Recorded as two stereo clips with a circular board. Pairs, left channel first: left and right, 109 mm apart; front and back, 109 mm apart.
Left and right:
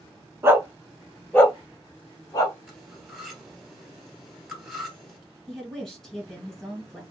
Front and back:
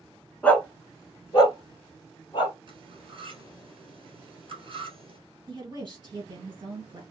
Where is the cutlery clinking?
175° right, 1.5 m.